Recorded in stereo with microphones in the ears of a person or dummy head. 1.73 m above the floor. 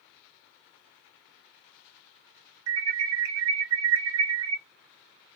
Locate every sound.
2.7 s an alarm: 80° right, 0.7 m